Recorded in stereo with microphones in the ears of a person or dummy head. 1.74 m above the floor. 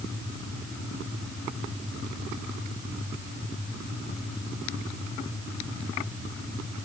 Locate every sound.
Only background noise.